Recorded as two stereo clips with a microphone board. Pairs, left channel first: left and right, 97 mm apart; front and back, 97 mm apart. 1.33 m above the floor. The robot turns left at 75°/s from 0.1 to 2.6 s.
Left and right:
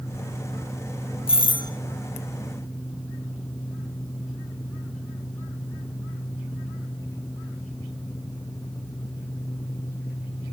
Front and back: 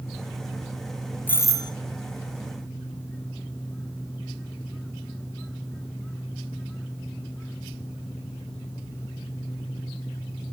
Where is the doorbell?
75° left, 0.6 m; by 1.7 s 40° left, 0.6 m.